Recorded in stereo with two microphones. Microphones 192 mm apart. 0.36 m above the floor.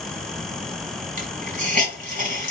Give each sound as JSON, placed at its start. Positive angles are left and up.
{"t": 1.2, "sound": "a hiss", "side_deg": -40, "distance_m": 1.5}